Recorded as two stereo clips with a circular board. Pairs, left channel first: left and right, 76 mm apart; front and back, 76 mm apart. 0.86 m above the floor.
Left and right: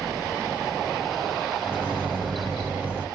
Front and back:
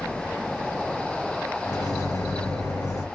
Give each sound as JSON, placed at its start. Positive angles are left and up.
{"t": 1.6, "sound": "a microwave", "azimuth_deg": -35, "distance_m": 1.0}